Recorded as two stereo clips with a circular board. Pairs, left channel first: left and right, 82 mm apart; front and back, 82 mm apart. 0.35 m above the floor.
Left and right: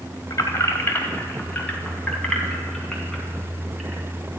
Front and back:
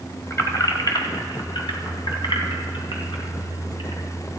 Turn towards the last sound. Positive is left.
turn(degrees=0)